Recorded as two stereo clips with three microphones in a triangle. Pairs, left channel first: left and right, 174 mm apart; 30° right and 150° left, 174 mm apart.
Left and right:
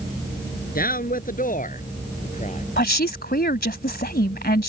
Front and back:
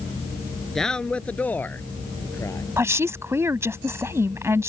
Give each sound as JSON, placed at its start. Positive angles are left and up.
{"t": 0.8, "sound": "a man speaking", "azimuth_deg": 55}
{"t": 2.8, "sound": "a woman speaking", "azimuth_deg": 75}